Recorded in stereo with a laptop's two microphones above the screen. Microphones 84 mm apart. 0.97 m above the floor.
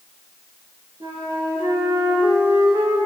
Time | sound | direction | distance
1.0 | a flute | 70° right (ahead or behind) | 5 m